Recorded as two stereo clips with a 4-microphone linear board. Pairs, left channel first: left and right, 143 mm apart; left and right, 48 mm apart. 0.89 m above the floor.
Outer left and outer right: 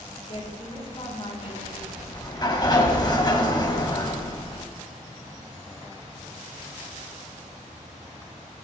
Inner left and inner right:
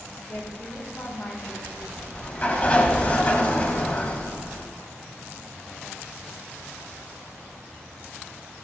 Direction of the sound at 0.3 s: 40° left (ahead or behind).